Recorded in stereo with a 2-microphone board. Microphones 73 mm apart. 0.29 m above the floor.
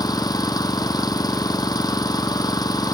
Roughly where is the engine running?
Left.